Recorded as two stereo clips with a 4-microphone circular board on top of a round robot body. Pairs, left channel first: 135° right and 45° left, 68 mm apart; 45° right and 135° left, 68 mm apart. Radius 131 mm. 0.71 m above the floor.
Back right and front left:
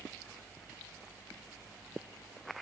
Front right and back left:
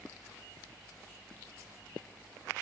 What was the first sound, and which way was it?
Only background noise.